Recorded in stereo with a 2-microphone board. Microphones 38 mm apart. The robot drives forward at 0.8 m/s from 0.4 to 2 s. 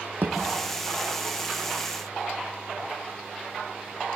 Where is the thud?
60° right (ahead or behind), 4.5 m.